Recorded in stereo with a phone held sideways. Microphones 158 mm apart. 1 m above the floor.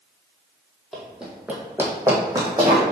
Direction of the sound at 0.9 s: Centre (ahead or behind).